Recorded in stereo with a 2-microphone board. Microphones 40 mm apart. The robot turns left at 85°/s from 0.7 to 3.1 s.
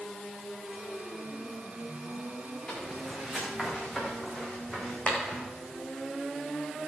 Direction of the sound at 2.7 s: 30° left (ahead or behind).